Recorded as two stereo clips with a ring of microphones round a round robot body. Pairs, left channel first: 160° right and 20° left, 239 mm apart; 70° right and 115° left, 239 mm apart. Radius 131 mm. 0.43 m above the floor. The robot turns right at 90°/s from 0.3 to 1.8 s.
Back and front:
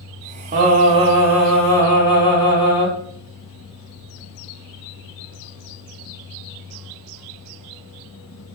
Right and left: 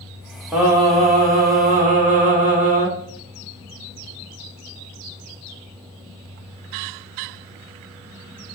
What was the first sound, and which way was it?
Singing, 30° left.